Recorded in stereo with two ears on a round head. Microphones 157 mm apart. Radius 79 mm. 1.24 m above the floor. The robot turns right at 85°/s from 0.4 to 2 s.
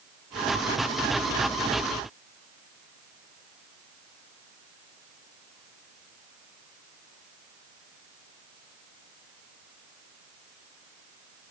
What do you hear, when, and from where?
Only background noise.